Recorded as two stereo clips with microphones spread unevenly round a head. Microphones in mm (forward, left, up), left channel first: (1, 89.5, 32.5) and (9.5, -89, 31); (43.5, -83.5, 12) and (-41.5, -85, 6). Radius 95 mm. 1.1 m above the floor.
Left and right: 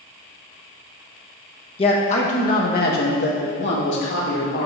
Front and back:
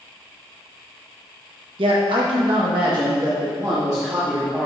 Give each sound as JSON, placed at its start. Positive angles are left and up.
{"t": 1.8, "sound": "a man speaking", "azimuth_deg": 155, "distance_m": 1.3}